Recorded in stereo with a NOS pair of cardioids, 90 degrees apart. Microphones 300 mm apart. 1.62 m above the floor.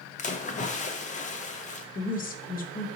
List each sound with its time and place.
0.2 s a splash: 25° left, 0.6 m
1.9 s a woman speaking: 30° left, 0.8 m